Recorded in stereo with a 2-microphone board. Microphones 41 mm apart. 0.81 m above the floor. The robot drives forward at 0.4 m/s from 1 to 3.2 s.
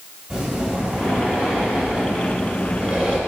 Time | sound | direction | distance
0.3 | breathing | 10° right (ahead or behind) | 2.5 m